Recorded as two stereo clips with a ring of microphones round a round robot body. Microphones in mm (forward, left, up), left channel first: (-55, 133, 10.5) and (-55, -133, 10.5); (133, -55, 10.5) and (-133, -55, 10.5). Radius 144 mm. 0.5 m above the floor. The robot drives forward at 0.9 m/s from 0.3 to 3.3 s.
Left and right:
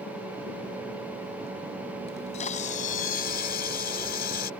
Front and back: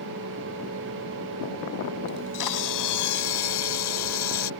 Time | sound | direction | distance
2.1 | a camera shutter | 20° left | ?